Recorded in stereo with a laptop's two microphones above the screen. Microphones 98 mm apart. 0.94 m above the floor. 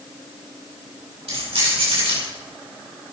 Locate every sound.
1.3 s keys jangling: 75° right (ahead or behind), 5 m